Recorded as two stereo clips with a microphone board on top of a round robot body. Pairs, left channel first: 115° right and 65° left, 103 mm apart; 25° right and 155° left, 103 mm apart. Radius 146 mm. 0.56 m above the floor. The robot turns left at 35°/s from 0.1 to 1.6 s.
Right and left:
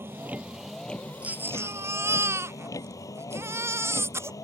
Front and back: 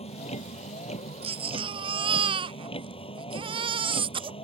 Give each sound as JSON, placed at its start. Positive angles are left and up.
{"t": 0.0, "sound": "a vehicle", "azimuth_deg": 0}
{"t": 1.2, "sound": "a baby crying", "azimuth_deg": 145}